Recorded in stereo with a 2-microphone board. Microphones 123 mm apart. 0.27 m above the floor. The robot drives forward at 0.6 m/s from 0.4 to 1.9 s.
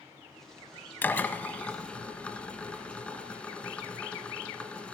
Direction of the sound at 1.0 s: 15° left (ahead or behind).